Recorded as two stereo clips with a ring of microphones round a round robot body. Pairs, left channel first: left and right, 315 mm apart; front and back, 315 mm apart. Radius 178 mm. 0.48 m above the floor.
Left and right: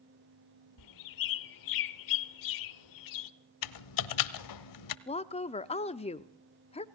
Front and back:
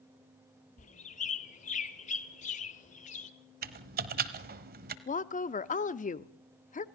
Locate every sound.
0.8 s a bird: 70° left, 1.0 m
3.6 s typing on a keyboard: 115° left, 1.1 m
5.1 s a woman speaking: 40° left, 0.7 m